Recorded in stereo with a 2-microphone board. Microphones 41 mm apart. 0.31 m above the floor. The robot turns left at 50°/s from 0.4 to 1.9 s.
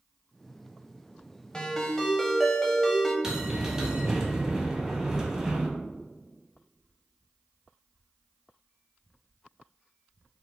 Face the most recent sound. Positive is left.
turn(degrees=-15)  # may be behind; listen again after turning